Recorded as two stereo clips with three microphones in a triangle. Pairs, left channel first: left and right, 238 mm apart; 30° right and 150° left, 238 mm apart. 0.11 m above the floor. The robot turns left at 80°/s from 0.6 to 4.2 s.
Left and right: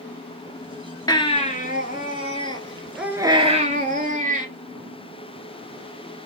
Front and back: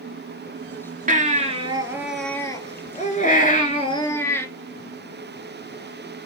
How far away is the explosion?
No explosion in this recording.